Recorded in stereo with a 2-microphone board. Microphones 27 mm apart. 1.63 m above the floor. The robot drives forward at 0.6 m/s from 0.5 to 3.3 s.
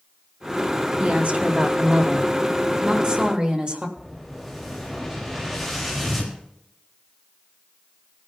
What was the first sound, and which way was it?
A woman speaking, 60° right (ahead or behind).